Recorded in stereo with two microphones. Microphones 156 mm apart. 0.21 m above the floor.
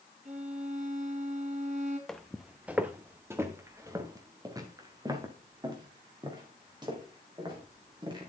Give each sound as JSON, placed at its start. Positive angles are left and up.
{"t": 0.2, "sound": "a violin", "side_deg": -55, "distance_m": 3.0}
{"t": 2.1, "sound": "footsteps", "side_deg": 5, "distance_m": 0.7}